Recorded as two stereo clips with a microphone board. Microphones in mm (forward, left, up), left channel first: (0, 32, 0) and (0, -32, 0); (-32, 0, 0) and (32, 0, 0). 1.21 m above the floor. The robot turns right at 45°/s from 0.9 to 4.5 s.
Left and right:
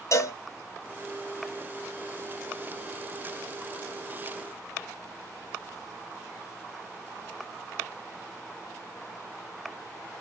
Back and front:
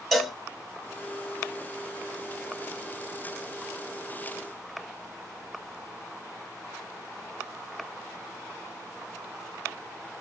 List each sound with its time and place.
0.1 s a cowbell: 90° left, 0.7 m